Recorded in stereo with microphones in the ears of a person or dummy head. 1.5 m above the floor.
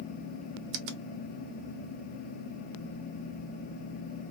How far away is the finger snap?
About 0.6 m.